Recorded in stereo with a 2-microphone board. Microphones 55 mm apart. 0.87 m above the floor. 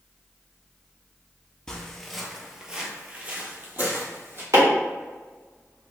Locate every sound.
1.7 s footsteps: 10° left (ahead or behind), 0.9 m; by 4.4 s 40° right (ahead or behind), 1.4 m
4.5 s chopping: 85° right, 2.0 m